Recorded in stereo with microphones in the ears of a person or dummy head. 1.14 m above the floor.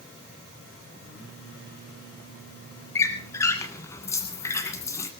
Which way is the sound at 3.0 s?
15° left (ahead or behind).